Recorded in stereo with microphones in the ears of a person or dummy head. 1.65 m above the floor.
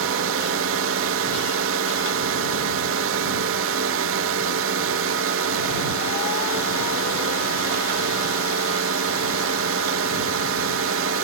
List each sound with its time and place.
0.0 s a drone: 70° right (ahead or behind)